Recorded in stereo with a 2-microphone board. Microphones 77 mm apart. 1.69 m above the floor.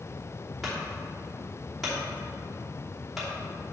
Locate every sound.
0.6 s a clunk: 5° right (ahead or behind), 3 m